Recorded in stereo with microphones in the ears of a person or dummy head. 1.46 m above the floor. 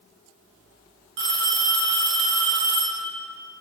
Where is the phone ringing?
55° right (ahead or behind), 0.9 m.